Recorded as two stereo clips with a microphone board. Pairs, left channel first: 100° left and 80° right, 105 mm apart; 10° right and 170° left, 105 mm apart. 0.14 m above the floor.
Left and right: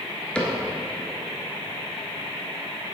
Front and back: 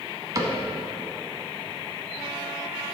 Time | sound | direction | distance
0.3 | a cupboard door | 170° left | 1.0 m